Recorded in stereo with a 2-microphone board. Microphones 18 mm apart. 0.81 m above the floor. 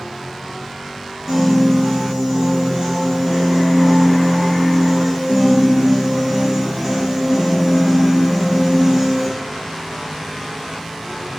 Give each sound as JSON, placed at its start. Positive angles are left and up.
{"t": 1.3, "sound": "a piano", "side_deg": -15, "distance_m": 2.5}